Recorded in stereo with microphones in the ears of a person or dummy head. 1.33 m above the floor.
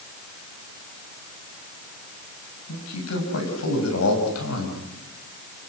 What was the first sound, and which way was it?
A man speaking, 85° left.